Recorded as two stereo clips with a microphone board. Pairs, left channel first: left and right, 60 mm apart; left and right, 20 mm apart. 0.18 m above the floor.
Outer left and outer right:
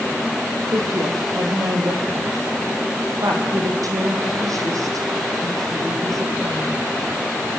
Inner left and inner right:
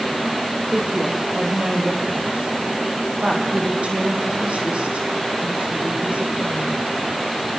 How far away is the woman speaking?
About 7 m.